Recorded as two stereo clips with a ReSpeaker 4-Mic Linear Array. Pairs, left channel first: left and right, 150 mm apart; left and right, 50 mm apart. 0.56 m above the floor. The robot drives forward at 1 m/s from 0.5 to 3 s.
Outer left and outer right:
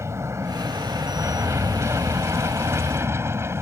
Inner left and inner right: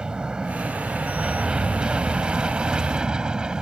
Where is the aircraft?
20° right (ahead or behind); by 3.6 s 15° right (ahead or behind).